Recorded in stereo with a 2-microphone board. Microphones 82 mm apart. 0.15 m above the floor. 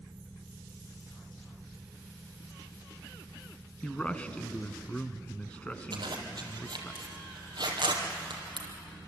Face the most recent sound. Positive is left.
turn(degrees=-55)  # may be behind; listen again after turning